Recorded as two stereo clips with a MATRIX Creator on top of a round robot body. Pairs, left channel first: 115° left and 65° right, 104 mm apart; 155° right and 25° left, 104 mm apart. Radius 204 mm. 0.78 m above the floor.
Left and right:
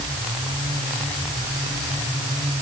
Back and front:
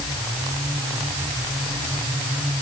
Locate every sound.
Only background noise.